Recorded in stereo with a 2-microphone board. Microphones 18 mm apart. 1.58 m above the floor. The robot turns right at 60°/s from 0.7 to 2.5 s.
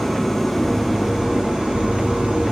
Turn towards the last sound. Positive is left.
turn(degrees=-65)